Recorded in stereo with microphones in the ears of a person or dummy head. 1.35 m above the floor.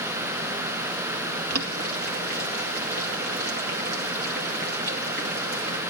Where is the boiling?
60° right (ahead or behind), 2 m.